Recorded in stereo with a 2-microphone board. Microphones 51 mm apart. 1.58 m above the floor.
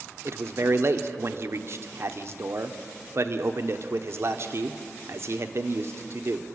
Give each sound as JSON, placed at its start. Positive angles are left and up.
{"t": 0.2, "sound": "a man speaking", "side_deg": -55, "distance_m": 1.1}